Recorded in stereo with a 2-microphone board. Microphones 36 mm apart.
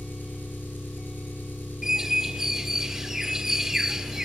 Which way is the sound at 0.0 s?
75° left (ahead or behind).